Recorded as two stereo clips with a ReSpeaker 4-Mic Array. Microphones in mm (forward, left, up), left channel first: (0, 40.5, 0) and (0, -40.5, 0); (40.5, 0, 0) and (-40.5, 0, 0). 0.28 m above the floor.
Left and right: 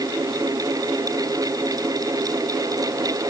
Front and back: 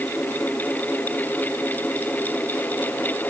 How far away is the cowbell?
No cowbell in this recording.